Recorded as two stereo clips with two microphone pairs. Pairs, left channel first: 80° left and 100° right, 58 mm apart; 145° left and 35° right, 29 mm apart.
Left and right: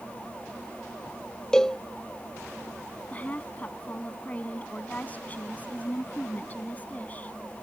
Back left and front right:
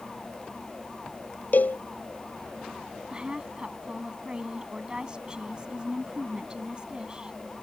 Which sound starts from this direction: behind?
A cowbell, at 1.5 s.